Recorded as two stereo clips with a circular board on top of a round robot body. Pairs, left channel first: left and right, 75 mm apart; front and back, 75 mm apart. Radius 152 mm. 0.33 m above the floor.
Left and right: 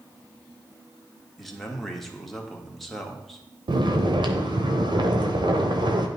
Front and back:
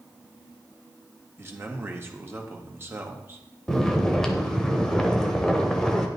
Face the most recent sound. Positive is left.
turn(degrees=-85)